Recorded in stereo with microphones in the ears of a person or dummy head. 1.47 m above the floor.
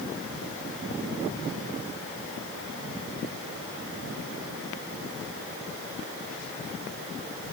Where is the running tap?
I don't hear a running tap.